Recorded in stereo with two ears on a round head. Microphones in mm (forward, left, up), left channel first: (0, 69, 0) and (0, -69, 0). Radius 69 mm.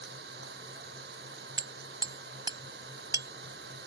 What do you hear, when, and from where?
0.0 s an engine running: 75° right (ahead or behind)
1.6 s hammering: 25° right (ahead or behind)